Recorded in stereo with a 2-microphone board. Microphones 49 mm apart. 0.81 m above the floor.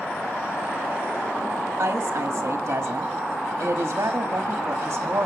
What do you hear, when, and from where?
1.8 s a woman speaking: 65° right (ahead or behind), 1.5 m